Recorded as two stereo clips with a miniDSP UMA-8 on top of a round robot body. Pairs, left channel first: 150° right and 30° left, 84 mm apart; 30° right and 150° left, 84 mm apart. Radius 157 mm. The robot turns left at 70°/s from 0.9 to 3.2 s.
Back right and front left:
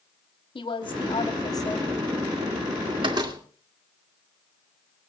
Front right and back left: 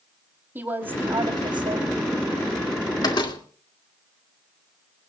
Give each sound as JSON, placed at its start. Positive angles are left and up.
{"t": 0.6, "sound": "a woman speaking", "azimuth_deg": -145, "distance_m": 3.5}
{"t": 3.0, "sound": "a door slam", "azimuth_deg": 10, "distance_m": 2.0}